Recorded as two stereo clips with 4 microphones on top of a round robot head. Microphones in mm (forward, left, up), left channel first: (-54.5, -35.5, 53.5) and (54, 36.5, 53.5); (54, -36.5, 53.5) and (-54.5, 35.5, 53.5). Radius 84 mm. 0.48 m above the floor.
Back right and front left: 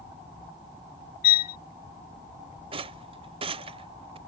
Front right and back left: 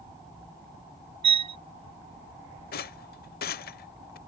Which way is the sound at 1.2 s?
160° right.